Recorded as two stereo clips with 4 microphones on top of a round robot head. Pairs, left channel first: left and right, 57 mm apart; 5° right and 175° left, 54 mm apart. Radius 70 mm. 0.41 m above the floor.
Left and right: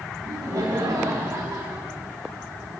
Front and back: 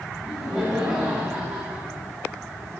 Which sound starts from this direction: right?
Laughter, at 0.2 s.